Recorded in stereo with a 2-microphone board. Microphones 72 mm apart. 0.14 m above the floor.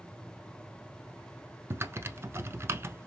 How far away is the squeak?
No squeak in this recording.